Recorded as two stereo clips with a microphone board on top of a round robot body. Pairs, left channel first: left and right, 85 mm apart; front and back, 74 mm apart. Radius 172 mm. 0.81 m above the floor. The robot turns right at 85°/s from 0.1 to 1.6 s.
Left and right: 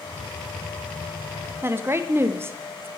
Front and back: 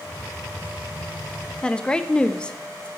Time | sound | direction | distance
1.6 | a woman speaking | 65° right | 0.7 m